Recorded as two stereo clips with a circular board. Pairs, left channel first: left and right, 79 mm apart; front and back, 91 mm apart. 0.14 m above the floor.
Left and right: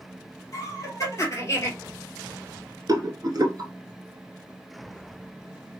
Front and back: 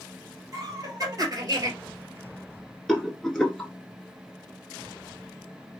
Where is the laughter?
130° left, 2.5 m; by 1.7 s 135° left, 2 m.